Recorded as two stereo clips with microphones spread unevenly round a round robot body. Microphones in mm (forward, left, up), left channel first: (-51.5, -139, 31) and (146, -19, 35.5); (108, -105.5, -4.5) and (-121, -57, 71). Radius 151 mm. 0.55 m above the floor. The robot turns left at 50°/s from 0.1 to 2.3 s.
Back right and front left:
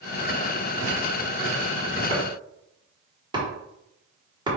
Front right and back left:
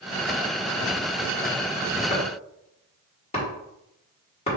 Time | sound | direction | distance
2.1 | chopping | 25° right | 1.6 m